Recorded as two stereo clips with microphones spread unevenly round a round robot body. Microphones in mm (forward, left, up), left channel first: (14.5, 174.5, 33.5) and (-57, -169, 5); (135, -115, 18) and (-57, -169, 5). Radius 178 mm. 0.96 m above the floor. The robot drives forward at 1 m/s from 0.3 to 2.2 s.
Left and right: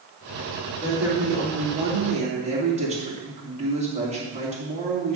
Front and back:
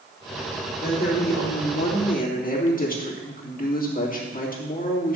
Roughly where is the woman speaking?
Ahead.